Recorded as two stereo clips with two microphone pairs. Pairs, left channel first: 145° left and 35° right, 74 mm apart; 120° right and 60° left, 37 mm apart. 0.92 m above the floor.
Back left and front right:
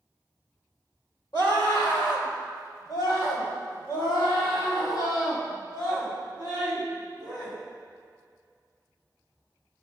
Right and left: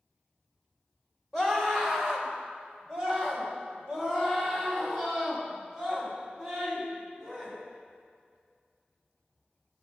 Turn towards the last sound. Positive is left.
turn(degrees=140)